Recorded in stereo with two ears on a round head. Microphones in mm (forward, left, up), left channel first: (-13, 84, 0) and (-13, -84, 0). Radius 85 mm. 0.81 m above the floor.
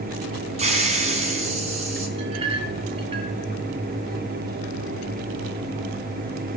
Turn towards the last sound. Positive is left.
turn(degrees=-30)  # may be behind; listen again after turning